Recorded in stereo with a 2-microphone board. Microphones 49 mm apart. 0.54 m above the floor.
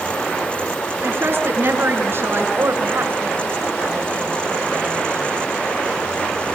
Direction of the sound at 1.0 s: 50° right (ahead or behind).